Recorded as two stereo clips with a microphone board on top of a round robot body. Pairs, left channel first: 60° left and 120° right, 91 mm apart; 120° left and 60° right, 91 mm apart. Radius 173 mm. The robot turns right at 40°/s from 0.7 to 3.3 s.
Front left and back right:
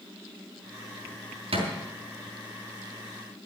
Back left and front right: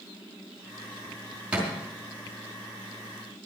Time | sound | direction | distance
1.5 | a thud | 140° right | 4.5 m